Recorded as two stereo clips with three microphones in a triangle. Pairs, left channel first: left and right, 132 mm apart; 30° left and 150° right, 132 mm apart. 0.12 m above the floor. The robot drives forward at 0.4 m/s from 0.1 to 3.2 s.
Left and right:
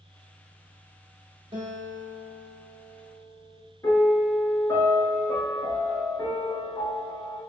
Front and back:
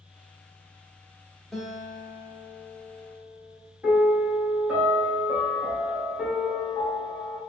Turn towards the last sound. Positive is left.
turn(degrees=135)